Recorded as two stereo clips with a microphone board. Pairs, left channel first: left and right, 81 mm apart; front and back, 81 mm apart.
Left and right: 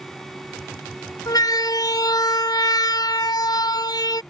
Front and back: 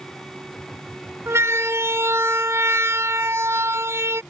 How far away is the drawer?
No drawer in this recording.